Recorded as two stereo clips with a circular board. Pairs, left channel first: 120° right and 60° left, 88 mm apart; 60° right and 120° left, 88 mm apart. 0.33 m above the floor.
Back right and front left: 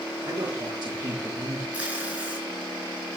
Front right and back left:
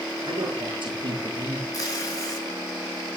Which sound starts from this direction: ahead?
Tape being pulled, at 1.7 s.